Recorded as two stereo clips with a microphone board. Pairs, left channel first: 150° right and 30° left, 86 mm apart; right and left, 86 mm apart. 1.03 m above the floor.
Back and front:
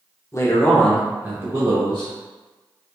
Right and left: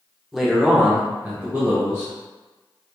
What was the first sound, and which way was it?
A man speaking, 175° left.